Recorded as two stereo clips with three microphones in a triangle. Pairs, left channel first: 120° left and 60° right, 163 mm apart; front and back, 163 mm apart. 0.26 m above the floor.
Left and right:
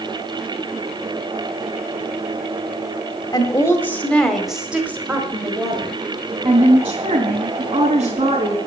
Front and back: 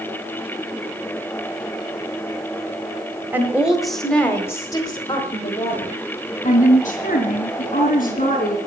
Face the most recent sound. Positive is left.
turn(degrees=-20)